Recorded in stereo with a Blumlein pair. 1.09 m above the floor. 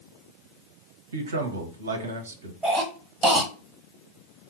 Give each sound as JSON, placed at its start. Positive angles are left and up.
{"t": 1.1, "sound": "a man speaking", "azimuth_deg": -70, "distance_m": 0.7}
{"t": 2.6, "sound": "a cough", "azimuth_deg": -10, "distance_m": 1.0}